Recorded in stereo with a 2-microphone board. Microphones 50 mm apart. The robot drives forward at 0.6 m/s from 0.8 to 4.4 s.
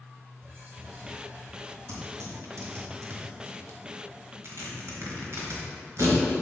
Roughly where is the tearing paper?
Right.